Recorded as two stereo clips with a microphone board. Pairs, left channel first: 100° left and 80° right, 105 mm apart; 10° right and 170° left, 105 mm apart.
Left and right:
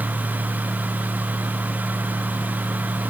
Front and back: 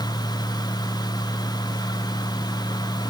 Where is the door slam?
No door slam in this recording.